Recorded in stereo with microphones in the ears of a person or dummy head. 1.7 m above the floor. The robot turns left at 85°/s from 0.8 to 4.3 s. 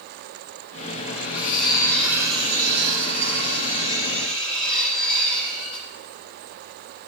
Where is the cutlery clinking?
90° left, 7 m; by 5.9 s 170° left, 7 m.